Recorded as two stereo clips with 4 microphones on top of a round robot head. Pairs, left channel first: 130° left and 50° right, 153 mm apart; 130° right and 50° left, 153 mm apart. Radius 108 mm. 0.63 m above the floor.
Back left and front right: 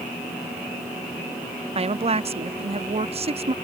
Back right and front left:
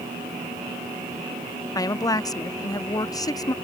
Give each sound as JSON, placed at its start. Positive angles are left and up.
{"t": 1.8, "sound": "a woman speaking", "azimuth_deg": -75}